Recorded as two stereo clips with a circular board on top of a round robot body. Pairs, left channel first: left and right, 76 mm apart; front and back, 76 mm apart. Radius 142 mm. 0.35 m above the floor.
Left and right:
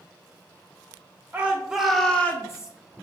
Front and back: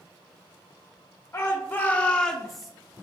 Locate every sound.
1.3 s a shout: 35° right, 1.0 m; by 2.7 s 95° left, 0.9 m